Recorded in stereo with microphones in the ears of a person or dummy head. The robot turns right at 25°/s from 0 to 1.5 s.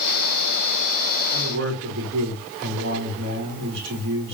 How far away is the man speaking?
About 4 m.